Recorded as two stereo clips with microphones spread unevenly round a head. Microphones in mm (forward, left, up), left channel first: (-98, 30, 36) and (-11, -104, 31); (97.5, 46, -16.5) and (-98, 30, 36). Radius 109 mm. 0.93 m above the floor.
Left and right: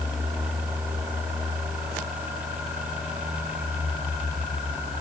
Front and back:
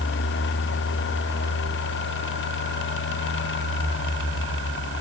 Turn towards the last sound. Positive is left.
No sound to turn to.